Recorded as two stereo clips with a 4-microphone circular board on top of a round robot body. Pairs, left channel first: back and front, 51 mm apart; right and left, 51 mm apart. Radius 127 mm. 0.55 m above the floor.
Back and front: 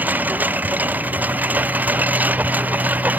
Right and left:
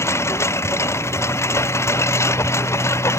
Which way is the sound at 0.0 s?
60° right.